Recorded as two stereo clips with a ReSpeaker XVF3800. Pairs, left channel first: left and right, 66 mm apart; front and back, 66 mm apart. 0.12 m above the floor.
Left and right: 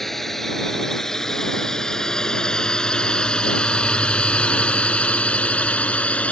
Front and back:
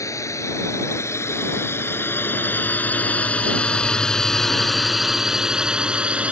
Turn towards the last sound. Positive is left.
turn(degrees=135)